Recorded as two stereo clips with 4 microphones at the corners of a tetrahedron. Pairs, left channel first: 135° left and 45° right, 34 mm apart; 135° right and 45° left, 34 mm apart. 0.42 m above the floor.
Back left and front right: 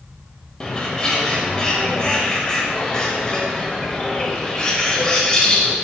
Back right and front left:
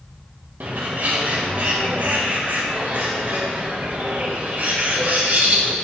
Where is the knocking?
I don't hear knocking.